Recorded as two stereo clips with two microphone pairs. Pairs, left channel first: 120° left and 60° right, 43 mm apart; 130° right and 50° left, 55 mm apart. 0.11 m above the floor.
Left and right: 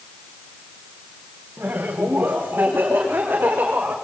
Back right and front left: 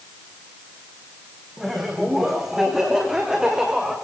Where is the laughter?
40° right, 7 m; by 4.0 s 30° right, 8 m.